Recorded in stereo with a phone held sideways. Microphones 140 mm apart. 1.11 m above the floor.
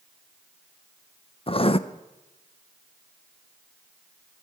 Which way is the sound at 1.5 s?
40° left (ahead or behind).